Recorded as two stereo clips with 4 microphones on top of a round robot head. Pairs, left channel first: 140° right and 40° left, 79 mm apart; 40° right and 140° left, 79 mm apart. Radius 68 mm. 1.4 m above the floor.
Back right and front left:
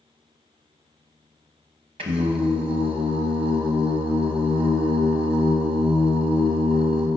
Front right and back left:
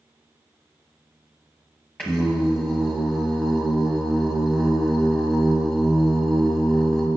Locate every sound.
2.0 s singing: 40° left, 0.7 m